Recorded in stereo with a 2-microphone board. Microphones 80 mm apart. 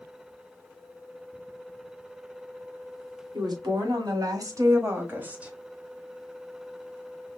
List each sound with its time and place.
3.3 s a woman speaking: 60° right (ahead or behind), 2.0 m; by 5.5 s 10° right (ahead or behind), 1.2 m